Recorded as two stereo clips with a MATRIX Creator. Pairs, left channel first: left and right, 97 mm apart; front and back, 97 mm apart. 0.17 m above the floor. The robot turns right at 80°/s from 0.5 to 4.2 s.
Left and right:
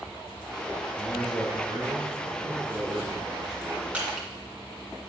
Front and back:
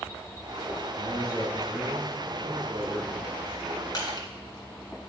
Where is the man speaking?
10° left, 3 m; by 3.8 s 115° right, 3 m.